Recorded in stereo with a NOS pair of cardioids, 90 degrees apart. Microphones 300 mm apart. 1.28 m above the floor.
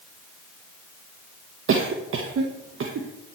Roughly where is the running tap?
No running tap in this recording.